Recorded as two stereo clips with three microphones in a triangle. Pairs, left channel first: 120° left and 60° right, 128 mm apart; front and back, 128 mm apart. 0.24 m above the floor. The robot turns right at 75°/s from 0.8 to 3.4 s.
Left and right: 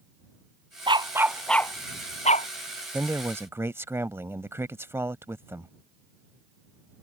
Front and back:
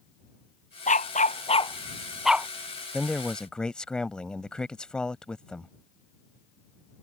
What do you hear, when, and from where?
0.9 s a dog barking: 15° right; by 2.5 s 110° left
2.9 s a man speaking: 105° right; by 5.7 s 70° right